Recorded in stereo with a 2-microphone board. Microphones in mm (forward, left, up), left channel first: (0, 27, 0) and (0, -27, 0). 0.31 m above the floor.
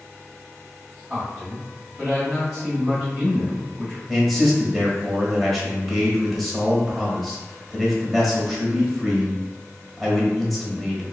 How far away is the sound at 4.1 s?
About 1.2 m.